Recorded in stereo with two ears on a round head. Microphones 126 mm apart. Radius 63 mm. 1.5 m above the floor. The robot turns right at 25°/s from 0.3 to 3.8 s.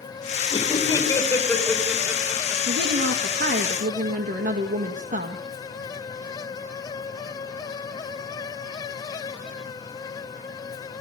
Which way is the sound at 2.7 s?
80° right.